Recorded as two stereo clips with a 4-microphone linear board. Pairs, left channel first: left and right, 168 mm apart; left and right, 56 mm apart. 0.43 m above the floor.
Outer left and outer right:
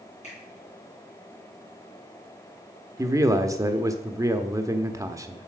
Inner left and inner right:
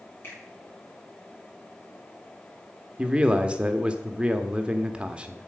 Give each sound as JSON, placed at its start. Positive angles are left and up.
{"t": 0.2, "sound": "a finger snap", "side_deg": 40, "distance_m": 6.0}
{"t": 3.0, "sound": "a man speaking", "side_deg": -20, "distance_m": 0.8}